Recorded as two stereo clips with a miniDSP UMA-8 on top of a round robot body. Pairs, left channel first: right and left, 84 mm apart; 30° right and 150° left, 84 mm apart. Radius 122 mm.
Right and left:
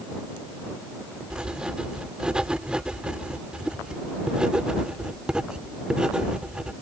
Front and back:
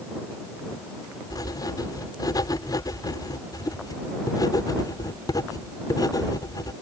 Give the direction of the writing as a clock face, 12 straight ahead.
12 o'clock.